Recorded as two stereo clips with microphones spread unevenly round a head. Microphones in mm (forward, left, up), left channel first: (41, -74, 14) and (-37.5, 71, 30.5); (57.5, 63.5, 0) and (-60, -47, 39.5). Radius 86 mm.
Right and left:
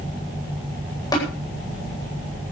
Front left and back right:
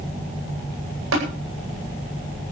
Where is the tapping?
130° right, 9.5 m.